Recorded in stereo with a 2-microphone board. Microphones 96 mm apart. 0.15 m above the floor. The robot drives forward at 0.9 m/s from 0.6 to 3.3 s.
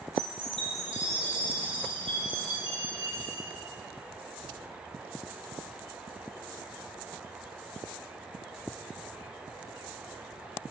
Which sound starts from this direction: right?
A chime, at 0.2 s.